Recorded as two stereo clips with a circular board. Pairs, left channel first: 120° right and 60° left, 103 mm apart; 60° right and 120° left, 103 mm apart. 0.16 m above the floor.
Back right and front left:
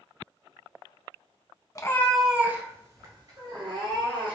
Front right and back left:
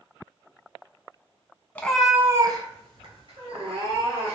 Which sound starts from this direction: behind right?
A cat meowing, at 1.8 s.